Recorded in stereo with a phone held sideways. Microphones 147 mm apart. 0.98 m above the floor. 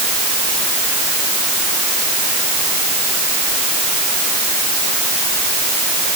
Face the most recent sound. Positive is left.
No sound to turn to.